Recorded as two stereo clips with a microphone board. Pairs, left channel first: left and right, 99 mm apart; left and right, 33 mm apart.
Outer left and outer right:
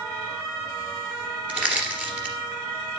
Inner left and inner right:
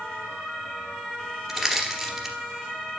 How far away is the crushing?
About 2.5 m.